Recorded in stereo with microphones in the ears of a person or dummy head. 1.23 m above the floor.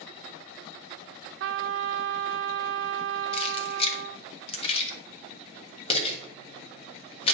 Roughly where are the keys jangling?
Left.